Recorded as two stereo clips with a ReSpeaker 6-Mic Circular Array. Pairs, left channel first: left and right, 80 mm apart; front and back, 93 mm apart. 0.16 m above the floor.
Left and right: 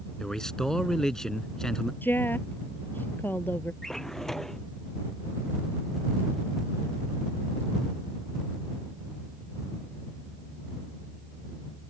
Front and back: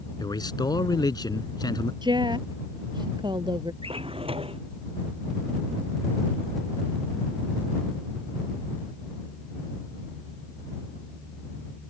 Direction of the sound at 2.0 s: 150° left.